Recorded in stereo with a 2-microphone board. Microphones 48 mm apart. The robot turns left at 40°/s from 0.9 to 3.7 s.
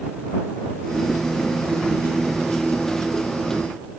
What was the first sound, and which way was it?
Only background noise.